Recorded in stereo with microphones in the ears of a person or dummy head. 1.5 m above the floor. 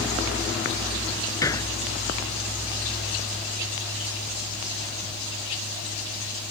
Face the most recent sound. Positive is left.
turn(degrees=20)  # may be behind; listen again after turning